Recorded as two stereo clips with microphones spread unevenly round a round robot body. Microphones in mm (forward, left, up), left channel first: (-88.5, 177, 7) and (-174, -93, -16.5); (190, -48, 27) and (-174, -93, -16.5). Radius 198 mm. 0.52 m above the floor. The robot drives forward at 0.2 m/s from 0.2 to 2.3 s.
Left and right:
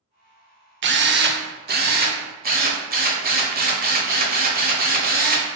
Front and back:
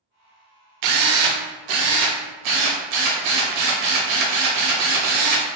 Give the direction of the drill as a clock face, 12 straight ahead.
5 o'clock.